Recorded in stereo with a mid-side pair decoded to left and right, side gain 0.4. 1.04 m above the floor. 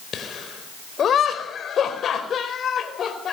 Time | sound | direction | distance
0.1 | laughter | 60° left | 5 m